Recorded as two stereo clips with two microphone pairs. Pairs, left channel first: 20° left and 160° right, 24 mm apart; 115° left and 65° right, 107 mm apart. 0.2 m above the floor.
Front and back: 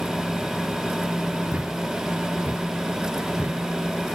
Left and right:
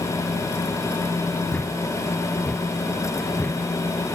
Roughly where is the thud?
Behind.